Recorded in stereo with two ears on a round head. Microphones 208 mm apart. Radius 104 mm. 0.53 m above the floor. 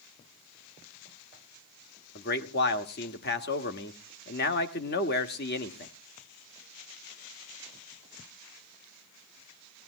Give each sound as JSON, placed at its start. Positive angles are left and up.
{"t": 2.1, "sound": "a man speaking", "side_deg": 45, "distance_m": 1.3}